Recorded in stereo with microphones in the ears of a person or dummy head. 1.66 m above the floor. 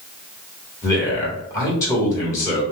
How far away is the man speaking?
About 1.4 m.